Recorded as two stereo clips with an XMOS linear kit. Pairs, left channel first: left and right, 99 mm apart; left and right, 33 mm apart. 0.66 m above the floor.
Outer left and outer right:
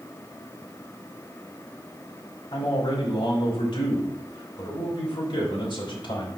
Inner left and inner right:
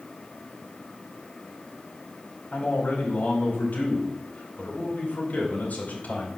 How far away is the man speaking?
About 4.5 m.